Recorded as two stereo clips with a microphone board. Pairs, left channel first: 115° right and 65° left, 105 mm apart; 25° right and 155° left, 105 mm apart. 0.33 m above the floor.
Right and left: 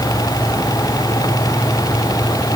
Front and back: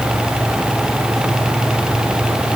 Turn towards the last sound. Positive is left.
No sound to turn to.